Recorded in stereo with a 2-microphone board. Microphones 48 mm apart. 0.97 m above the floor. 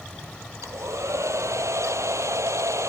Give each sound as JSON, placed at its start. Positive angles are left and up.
{"t": 0.6, "sound": "a hair dryer", "side_deg": -80}